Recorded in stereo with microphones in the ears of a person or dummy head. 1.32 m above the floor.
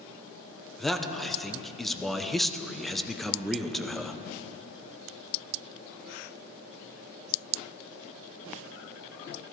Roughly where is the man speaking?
Centre.